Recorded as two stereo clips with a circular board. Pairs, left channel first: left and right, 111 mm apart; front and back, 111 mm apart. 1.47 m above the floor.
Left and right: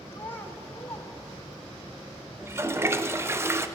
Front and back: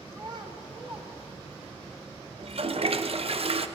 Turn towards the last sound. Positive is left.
turn(degrees=-155)